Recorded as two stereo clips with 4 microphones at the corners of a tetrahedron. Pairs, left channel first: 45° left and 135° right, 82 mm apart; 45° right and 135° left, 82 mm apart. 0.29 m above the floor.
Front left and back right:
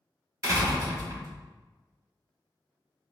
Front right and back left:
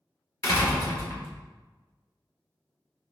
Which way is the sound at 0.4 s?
90° right.